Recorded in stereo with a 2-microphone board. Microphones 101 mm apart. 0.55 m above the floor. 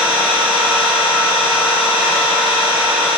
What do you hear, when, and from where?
0.0 s an engine running: centre (ahead or behind), 1.1 m